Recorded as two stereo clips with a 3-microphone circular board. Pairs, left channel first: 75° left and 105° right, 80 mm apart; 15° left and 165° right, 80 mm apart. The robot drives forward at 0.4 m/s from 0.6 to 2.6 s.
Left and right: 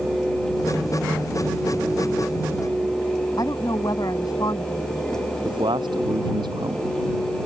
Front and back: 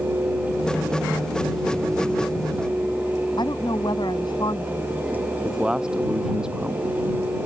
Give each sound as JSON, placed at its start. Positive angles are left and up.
{"t": 3.4, "sound": "a woman speaking", "azimuth_deg": 35}
{"t": 5.5, "sound": "a man speaking", "azimuth_deg": -85}